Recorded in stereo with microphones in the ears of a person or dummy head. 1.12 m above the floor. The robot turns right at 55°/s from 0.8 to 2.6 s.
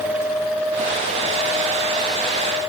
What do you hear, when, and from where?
Only background noise.